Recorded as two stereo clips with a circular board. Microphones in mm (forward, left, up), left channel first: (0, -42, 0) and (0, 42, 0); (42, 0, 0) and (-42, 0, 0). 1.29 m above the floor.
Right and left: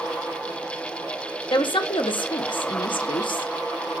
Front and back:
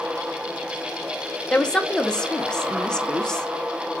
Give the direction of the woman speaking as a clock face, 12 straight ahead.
3 o'clock.